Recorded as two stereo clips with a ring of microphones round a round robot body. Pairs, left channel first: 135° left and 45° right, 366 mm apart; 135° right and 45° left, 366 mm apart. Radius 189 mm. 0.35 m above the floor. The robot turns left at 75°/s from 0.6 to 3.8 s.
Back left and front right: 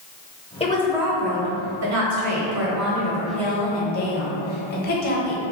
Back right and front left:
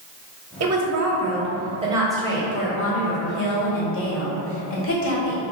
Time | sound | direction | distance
0.6 | a woman speaking | 70° left | 1.0 m